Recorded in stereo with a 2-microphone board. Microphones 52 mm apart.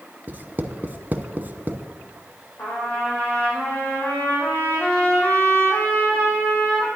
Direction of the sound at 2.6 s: 25° left (ahead or behind).